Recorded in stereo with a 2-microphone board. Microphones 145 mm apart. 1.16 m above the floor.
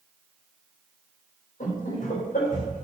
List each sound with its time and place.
1.6 s laughter: 60° left (ahead or behind), 4.5 m; by 2.8 s 65° left (ahead or behind), 3.5 m